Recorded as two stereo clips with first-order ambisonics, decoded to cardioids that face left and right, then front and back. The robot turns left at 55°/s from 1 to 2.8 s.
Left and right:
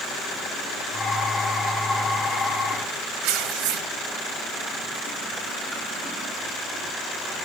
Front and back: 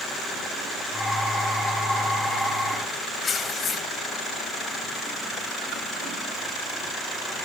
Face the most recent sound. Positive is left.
turn(degrees=-70)